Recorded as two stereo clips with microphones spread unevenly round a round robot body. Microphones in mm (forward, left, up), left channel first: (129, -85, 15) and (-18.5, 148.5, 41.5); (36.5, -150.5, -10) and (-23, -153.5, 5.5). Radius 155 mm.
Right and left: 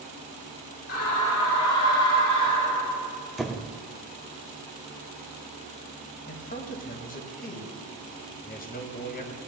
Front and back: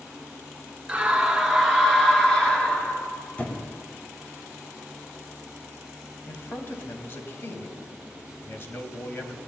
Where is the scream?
100° right, 4 m; by 3.1 s 60° right, 4.5 m.